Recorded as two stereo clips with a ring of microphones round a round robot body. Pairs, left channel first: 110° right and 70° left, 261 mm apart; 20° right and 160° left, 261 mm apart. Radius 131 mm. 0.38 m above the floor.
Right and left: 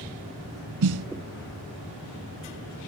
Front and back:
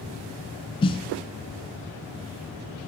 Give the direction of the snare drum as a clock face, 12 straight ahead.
10 o'clock.